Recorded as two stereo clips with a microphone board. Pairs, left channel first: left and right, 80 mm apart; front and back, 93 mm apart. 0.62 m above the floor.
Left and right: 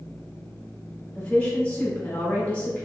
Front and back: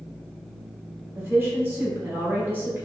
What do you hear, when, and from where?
1.1 s a woman speaking: 140° left, 1.1 m